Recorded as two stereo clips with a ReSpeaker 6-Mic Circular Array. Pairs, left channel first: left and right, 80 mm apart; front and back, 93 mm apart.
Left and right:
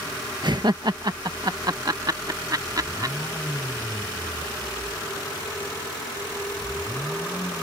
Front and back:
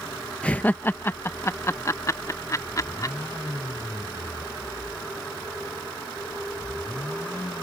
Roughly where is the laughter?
Right.